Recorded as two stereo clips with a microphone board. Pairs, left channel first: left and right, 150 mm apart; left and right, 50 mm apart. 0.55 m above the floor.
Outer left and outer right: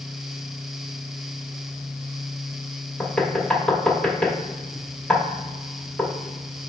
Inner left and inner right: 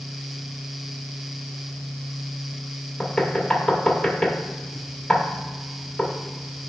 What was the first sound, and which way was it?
Knocking, 5° left (ahead or behind).